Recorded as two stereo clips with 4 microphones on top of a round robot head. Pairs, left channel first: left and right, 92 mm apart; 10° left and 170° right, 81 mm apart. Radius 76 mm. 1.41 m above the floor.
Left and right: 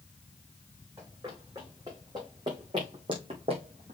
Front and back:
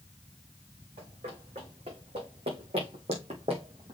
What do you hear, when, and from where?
1.0 s running footsteps: 155° right, 5 m; by 3.9 s 120° right, 2 m